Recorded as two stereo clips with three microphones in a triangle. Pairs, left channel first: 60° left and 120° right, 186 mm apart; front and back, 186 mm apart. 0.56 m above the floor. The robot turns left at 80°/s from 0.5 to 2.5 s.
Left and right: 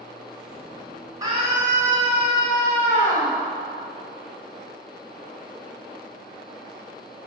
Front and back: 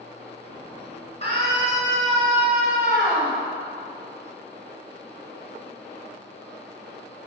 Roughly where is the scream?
Ahead right.